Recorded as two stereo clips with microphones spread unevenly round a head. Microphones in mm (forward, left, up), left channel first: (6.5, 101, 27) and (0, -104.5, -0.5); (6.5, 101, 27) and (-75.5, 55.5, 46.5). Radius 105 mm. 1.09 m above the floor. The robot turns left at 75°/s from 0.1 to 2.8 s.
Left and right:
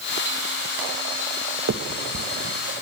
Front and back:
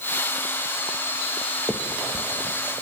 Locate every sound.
1.7 s a finger snap: 65° right, 1.0 m; by 2.6 s 130° right, 1.0 m